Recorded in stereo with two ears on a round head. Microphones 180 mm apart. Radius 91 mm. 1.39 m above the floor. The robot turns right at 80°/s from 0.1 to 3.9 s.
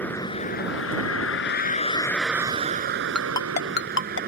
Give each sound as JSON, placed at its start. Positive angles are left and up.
{"t": 0.0, "sound": "a vehicle", "azimuth_deg": 10}
{"t": 3.1, "sound": "a ringtone", "side_deg": 5}